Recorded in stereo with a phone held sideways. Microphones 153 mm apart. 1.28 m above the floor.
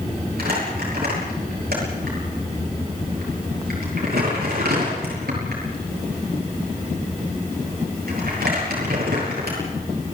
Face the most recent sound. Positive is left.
turn(degrees=-85)